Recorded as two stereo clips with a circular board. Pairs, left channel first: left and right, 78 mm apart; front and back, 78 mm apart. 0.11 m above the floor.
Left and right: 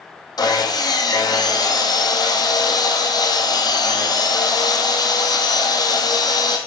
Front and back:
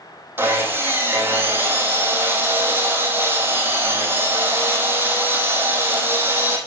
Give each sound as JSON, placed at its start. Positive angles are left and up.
{"t": 0.4, "sound": "sawing", "azimuth_deg": 120, "distance_m": 2.0}